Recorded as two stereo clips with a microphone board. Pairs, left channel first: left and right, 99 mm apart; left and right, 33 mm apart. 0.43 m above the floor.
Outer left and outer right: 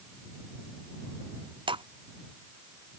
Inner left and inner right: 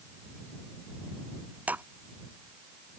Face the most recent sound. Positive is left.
turn(degrees=-65)  # may be behind; listen again after turning